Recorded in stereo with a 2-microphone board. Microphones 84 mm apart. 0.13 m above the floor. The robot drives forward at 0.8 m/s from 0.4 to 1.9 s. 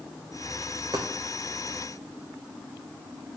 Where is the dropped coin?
45° right (ahead or behind), 1.9 m; by 1.1 s 50° right (ahead or behind), 1.7 m.